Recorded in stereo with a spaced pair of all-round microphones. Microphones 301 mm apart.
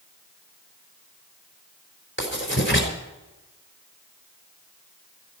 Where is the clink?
I don't hear a clink.